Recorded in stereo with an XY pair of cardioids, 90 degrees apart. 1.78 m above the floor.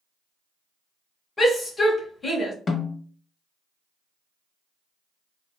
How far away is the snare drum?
About 0.9 m.